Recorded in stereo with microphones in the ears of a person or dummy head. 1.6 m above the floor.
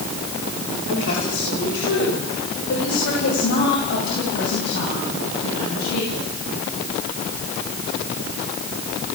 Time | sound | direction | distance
0.9 | a woman speaking | 70° left (ahead or behind) | 8 m